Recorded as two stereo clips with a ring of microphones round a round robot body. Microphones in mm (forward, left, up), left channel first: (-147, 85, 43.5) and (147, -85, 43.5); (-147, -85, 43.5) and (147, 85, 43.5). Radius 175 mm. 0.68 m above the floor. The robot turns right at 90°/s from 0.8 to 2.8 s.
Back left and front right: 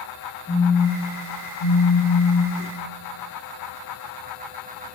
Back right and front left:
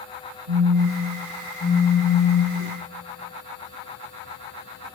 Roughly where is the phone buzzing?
Left.